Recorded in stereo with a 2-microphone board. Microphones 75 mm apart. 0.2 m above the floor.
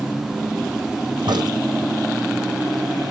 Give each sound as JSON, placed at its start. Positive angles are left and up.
{"t": 1.3, "sound": "a crack", "side_deg": -75, "distance_m": 2.0}